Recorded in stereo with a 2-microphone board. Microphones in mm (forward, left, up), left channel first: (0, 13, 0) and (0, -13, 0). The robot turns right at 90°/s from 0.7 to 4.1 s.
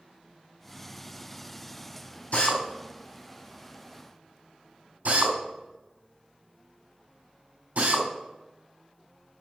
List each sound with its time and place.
2.3 s a drill: 60° left (ahead or behind), 3.5 m; by 8.1 s 75° right (ahead or behind), 3.5 m